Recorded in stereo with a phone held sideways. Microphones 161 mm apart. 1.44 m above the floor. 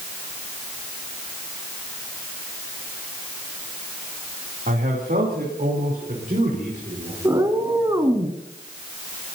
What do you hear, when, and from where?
4.7 s a man speaking: 75° right (ahead or behind), 3 m; by 7.2 s 55° right (ahead or behind), 5.5 m
7.2 s a cat meowing: 20° right (ahead or behind), 1.6 m